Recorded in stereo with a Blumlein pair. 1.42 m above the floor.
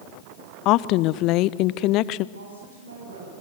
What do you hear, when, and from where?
0.7 s a woman speaking: 40° left, 0.8 m
2.4 s a woman speaking: 70° right, 7 m